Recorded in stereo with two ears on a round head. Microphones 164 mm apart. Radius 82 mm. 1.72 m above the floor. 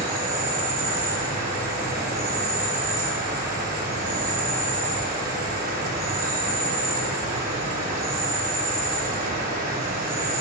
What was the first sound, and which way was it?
An insect, 45° right (ahead or behind).